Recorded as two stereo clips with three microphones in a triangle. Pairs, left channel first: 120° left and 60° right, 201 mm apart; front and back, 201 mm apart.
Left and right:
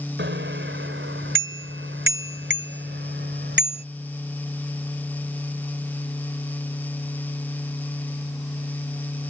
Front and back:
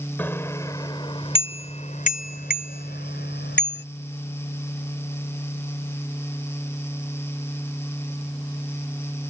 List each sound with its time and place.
0.2 s a bicycle bell: 80° right; by 3.8 s 25° right